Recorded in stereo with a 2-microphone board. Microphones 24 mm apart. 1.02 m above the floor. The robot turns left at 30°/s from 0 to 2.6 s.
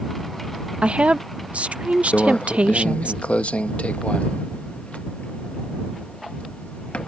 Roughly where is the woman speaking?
Ahead right.